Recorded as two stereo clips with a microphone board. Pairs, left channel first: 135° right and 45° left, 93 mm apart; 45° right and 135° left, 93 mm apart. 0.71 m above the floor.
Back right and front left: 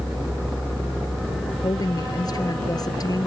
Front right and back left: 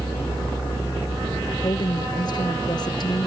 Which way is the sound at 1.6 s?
90° right.